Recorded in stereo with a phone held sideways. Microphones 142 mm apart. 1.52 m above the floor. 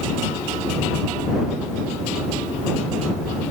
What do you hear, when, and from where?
Only background noise.